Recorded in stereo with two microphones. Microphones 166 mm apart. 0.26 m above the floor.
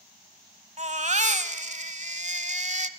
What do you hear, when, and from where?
0.8 s a baby crying: 45° right (ahead or behind), 1.0 m